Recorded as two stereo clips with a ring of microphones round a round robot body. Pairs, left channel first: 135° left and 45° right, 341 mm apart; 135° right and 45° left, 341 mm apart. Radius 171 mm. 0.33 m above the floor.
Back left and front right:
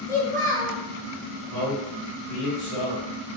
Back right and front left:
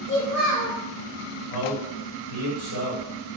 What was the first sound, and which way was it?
A child speaking, 145° right.